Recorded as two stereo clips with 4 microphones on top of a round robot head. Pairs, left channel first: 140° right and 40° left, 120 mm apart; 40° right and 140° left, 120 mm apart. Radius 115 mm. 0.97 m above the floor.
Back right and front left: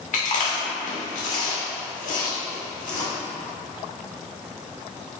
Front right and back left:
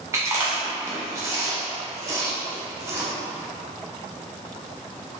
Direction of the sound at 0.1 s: 155° right.